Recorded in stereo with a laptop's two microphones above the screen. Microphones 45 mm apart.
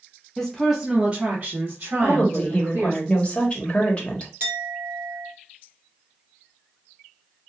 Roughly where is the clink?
Right.